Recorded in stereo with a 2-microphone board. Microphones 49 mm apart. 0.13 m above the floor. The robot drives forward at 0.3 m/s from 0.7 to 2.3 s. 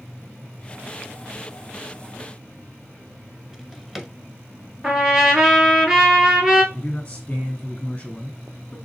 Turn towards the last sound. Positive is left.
turn(degrees=15)  # may be behind; listen again after turning